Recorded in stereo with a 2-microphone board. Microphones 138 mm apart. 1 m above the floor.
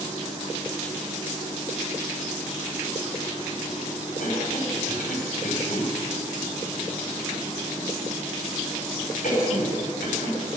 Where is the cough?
80° left, 3.5 m.